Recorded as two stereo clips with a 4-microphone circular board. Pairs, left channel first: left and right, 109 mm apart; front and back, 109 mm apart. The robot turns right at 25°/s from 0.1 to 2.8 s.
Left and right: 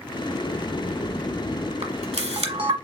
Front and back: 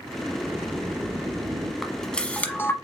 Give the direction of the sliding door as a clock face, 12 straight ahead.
9 o'clock.